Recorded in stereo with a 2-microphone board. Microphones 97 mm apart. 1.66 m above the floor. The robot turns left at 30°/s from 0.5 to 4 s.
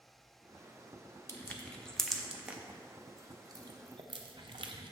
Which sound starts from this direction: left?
Crushing, at 1.3 s.